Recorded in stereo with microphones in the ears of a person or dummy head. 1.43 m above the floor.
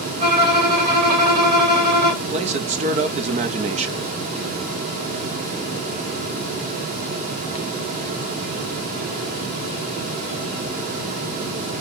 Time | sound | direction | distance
0.2 | a violin | 55° right (ahead or behind) | 2 m
2.2 | a man speaking | 40° right (ahead or behind) | 0.5 m